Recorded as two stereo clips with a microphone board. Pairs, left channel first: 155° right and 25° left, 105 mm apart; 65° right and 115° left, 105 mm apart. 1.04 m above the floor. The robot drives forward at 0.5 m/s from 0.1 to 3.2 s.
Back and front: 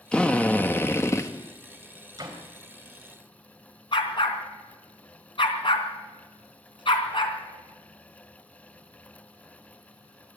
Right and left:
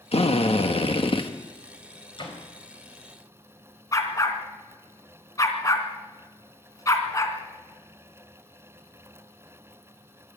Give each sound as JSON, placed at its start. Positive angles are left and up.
{"t": 0.1, "sound": "a drill", "azimuth_deg": -75, "distance_m": 1.6}
{"t": 2.2, "sound": "a door slam", "azimuth_deg": -30, "distance_m": 4.0}
{"t": 3.9, "sound": "a dog barking", "azimuth_deg": -125, "distance_m": 2.5}